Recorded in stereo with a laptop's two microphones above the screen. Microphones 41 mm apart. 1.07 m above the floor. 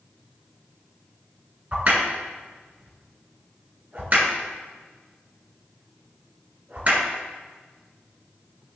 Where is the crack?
35° right (ahead or behind), 2.5 m.